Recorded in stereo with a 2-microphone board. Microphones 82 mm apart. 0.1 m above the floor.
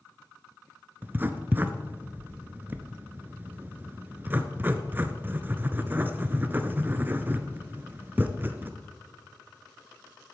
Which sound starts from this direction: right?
Writing, at 1.0 s.